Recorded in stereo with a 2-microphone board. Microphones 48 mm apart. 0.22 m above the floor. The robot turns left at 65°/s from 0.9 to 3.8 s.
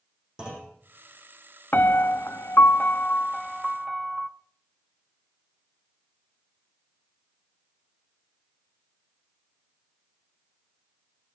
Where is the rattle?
No rattle in this recording.